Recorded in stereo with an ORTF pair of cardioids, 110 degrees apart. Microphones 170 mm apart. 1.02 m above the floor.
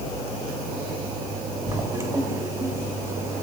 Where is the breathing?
I don't hear breathing.